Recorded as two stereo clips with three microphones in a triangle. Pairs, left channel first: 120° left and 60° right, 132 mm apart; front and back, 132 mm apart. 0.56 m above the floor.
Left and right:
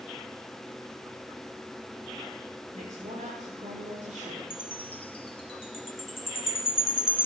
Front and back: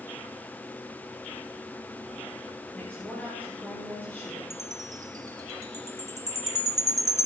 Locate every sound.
2.7 s a woman speaking: 80° right, 7 m
4.5 s a chime: 125° left, 0.9 m